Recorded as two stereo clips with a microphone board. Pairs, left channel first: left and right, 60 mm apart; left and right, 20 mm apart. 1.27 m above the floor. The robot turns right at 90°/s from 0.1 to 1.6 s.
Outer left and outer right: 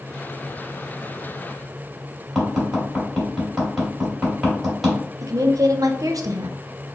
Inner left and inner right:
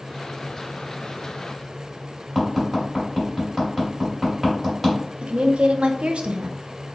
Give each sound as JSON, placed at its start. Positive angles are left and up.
{"t": 2.4, "sound": "tapping", "side_deg": 0, "distance_m": 2.0}
{"t": 5.2, "sound": "a woman speaking", "side_deg": -80, "distance_m": 0.6}